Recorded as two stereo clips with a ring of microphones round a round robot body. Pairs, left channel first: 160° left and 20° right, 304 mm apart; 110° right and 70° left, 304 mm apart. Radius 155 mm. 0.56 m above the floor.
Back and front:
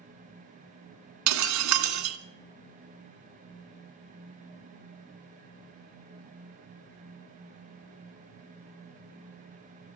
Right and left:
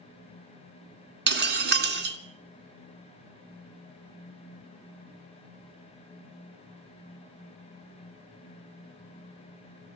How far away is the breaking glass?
About 2.5 m.